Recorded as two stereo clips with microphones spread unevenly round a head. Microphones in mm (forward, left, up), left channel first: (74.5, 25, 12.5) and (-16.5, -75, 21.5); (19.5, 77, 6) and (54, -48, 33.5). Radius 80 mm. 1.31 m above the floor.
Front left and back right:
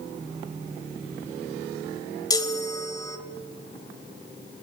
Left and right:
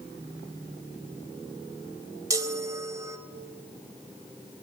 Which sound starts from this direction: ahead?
A chime, at 2.3 s.